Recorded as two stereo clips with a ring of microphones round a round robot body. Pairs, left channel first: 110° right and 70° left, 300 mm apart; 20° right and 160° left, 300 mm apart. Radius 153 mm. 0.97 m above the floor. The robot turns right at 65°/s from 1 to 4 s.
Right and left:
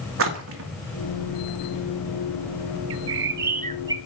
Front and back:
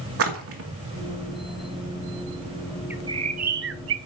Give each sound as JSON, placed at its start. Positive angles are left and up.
{"t": 0.2, "sound": "a splash", "azimuth_deg": 115, "distance_m": 2.5}
{"t": 2.9, "sound": "a bird", "azimuth_deg": 75, "distance_m": 0.7}